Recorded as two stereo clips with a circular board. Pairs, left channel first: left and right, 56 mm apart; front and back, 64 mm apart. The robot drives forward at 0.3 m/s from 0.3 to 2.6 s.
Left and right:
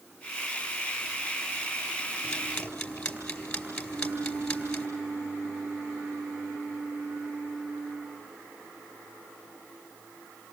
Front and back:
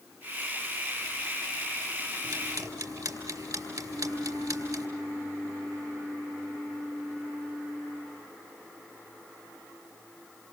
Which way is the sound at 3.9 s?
135° right.